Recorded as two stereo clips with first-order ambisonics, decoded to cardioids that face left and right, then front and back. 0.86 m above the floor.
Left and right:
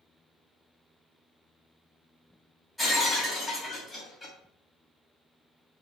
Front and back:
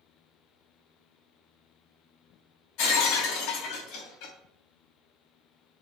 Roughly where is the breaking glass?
Ahead.